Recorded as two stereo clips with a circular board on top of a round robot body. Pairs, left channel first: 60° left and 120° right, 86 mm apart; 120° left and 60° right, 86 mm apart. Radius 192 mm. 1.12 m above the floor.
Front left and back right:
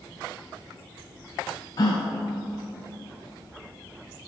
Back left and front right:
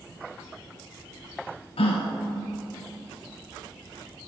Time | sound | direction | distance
1.8 | a gasp | 110° left | 0.5 m